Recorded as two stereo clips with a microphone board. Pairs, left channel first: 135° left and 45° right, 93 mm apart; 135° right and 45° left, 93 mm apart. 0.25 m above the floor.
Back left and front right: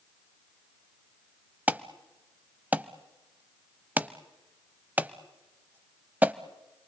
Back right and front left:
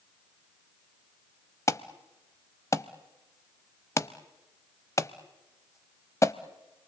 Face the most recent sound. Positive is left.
turn(degrees=-105)